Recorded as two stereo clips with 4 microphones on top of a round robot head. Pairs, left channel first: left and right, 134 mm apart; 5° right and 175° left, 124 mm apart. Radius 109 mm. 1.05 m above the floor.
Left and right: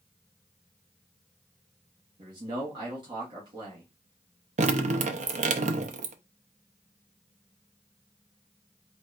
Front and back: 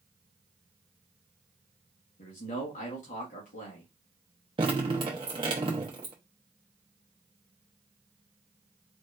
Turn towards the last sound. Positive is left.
turn(degrees=-120)